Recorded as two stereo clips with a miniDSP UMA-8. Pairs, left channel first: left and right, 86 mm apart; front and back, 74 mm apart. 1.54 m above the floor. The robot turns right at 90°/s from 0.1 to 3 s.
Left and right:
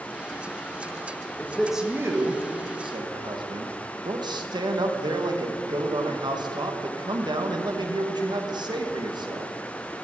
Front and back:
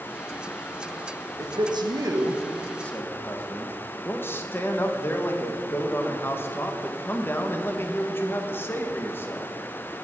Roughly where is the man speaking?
Behind left.